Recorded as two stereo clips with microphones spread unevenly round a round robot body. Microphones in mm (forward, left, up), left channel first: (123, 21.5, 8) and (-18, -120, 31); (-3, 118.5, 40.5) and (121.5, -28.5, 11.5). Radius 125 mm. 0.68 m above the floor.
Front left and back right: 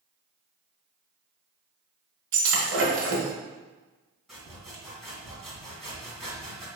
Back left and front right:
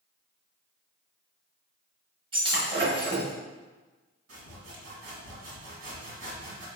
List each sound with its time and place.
2.3 s breaking glass: 120° right, 1.3 m
4.3 s sawing: 45° right, 2.0 m